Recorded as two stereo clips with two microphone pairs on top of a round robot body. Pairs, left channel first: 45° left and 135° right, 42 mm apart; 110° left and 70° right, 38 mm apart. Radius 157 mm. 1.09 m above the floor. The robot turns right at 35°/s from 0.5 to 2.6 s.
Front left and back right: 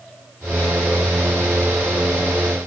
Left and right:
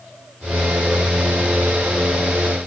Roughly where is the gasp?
I don't hear a gasp.